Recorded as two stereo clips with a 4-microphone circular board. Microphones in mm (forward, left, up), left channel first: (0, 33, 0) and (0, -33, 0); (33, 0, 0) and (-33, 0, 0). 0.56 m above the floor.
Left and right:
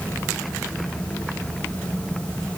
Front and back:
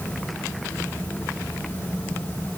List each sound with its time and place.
Only background noise.